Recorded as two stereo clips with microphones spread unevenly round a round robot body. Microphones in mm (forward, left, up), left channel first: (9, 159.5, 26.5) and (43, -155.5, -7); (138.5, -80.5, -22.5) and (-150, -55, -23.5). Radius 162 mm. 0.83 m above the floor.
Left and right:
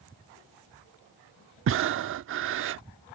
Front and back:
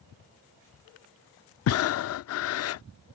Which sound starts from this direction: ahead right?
Breathing, at 1.7 s.